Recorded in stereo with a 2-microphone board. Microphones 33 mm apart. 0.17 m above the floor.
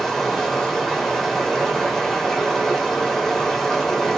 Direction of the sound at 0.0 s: 10° left (ahead or behind).